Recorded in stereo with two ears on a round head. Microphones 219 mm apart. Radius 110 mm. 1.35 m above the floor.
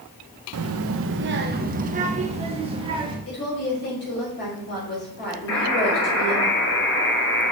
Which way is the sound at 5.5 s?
60° left (ahead or behind).